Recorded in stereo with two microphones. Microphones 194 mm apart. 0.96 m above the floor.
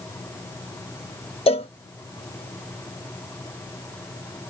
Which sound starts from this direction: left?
A cowbell, at 1.5 s.